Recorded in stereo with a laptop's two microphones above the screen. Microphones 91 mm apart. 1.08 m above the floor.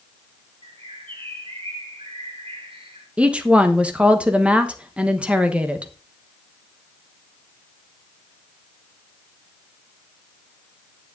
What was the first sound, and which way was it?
A bird, 75° right (ahead or behind).